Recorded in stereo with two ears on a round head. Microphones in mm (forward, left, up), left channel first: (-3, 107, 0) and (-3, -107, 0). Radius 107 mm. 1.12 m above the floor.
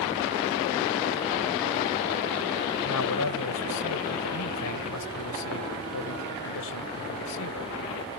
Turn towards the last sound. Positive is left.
turn(degrees=75)  # may be behind; listen again after turning